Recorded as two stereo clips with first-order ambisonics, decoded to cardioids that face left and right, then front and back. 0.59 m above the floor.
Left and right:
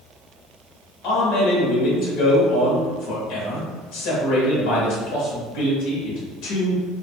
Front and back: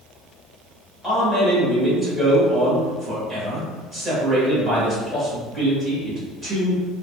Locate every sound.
1.0 s a man speaking: 85° left, 1.9 m